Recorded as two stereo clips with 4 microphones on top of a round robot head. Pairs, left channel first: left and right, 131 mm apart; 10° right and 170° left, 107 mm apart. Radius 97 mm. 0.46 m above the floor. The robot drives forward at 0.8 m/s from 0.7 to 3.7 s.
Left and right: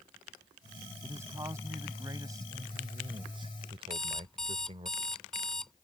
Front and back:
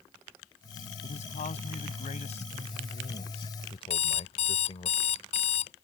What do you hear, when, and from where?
1.0 s a man speaking: 15° right; by 4.9 s 40° right
3.9 s an alarm clock: 5° left